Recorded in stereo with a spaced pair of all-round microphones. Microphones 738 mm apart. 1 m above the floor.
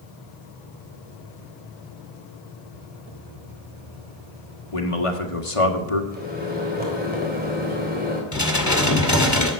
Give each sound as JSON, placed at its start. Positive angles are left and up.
{"t": 4.7, "sound": "a man speaking", "side_deg": 45, "distance_m": 1.8}
{"t": 6.1, "sound": "a microwave", "side_deg": -10, "distance_m": 3.5}
{"t": 8.3, "sound": "dishes clattering", "side_deg": 25, "distance_m": 2.0}